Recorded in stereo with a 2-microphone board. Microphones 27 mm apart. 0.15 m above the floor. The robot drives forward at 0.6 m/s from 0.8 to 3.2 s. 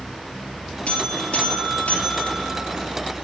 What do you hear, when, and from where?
0.9 s a buzzer: 60° left (ahead or behind), 3.5 m; by 2.8 s 70° left (ahead or behind), 3 m